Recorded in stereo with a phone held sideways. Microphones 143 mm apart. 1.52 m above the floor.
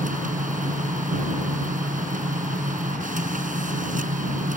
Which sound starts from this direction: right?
A machine running, at 0.0 s.